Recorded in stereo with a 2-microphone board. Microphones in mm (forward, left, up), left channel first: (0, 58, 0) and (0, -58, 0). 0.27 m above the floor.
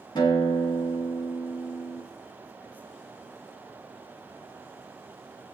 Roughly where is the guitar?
Left.